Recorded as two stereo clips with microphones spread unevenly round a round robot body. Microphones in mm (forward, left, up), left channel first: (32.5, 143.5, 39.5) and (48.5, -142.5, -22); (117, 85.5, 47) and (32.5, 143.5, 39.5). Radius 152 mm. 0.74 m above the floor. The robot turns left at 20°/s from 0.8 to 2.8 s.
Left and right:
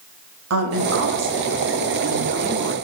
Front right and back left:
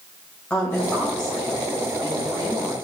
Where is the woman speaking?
110° right, 0.9 m; by 2.7 s 150° right, 0.9 m.